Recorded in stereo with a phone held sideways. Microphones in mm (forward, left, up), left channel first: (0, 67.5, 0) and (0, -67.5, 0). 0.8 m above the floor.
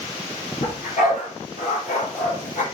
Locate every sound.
0.6 s a dog barking: 70° left (ahead or behind), 5.5 m